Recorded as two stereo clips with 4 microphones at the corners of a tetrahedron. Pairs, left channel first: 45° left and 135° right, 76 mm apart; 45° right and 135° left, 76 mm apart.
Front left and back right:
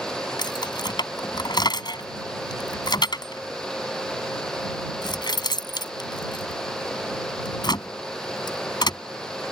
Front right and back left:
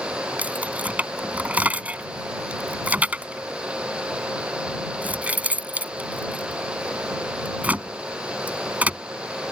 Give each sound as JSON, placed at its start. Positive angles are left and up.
{"t": 0.4, "sound": "keys jangling", "azimuth_deg": 65}